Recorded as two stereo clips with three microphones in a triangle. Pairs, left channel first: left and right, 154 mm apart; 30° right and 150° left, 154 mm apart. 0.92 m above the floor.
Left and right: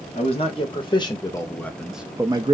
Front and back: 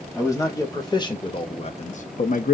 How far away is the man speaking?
About 1.3 m.